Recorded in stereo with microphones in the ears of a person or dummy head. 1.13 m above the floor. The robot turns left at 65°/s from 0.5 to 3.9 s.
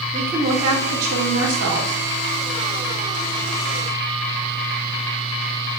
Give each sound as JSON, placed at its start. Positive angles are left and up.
{"t": 0.1, "sound": "a woman speaking", "azimuth_deg": -15, "distance_m": 3.5}